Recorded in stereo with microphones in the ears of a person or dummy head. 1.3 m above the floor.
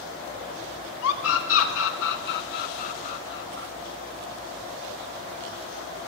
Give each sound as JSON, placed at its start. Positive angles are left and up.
{"t": 1.0, "sound": "a scream", "side_deg": 85, "distance_m": 3.5}